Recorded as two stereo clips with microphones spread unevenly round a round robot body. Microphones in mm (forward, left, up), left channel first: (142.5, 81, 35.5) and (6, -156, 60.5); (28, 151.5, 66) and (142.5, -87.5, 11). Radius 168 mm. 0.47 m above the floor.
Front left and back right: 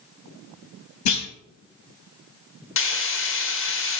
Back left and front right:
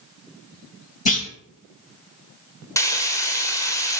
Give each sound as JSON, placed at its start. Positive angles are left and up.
{"t": 1.1, "sound": "a clunk", "azimuth_deg": 55, "distance_m": 2.5}
{"t": 2.8, "sound": "frying", "azimuth_deg": 30, "distance_m": 1.6}